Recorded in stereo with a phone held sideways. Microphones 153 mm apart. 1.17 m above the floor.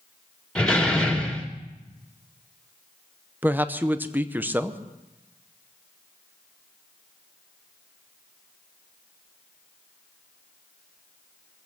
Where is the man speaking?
10° right (ahead or behind), 0.8 m.